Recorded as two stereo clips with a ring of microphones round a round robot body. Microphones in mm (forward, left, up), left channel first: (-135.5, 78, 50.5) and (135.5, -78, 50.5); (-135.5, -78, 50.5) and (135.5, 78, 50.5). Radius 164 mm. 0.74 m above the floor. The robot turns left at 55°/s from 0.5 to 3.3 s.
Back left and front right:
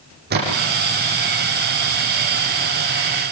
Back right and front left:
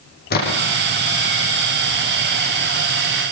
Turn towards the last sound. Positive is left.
turn(degrees=115)